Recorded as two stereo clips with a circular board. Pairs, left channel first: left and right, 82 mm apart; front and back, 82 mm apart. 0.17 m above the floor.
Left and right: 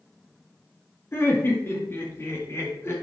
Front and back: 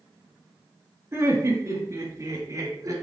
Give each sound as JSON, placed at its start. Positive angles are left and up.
{"t": 1.1, "sound": "laughter", "azimuth_deg": 140, "distance_m": 2.5}